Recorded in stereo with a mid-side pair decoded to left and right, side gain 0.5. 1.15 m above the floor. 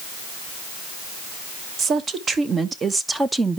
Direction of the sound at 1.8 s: 50° right.